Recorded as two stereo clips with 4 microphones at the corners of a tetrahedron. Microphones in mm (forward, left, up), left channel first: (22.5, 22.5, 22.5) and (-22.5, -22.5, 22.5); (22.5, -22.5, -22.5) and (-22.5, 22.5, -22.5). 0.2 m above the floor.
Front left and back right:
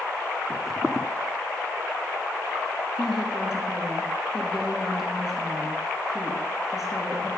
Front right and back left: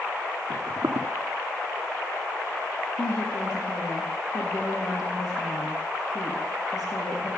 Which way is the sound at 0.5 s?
140° left.